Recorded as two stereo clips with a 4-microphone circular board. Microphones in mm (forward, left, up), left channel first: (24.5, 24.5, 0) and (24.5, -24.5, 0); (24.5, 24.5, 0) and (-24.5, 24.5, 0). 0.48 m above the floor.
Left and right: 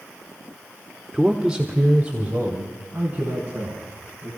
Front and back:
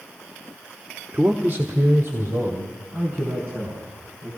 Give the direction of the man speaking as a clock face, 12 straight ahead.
6 o'clock.